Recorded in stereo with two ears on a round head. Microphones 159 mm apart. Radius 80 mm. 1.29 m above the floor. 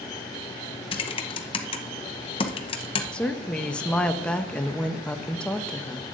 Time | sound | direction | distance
0.9 | typing on a keyboard | 30° left (ahead or behind) | 0.8 m
3.1 | a woman speaking | 5° left (ahead or behind) | 0.7 m